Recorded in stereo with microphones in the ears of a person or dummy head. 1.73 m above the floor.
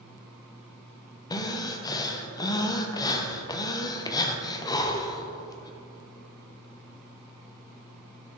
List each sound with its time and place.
1.3 s breathing: 25° left (ahead or behind), 0.7 m